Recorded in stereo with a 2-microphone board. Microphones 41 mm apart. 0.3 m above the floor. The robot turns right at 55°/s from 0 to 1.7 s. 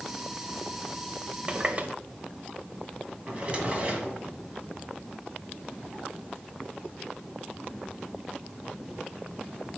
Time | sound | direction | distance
1.5 | a running tap | 25° right (ahead or behind) | 0.6 m
3.3 | a drawer | 30° right (ahead or behind) | 1.4 m